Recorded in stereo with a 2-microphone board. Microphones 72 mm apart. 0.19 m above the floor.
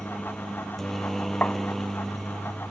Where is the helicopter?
5° left (ahead or behind); by 2.7 s centre (ahead or behind).